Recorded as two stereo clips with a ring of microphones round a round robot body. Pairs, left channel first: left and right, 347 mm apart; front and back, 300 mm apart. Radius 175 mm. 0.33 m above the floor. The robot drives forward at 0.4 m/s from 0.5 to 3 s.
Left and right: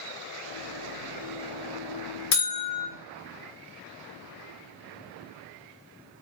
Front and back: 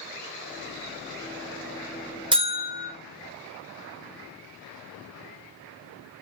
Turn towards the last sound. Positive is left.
turn(degrees=140)